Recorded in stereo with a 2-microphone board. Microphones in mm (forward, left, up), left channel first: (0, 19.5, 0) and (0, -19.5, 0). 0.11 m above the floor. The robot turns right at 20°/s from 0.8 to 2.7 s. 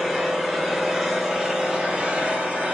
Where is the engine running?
175° right, 0.7 m; by 2.8 s 140° right, 0.7 m.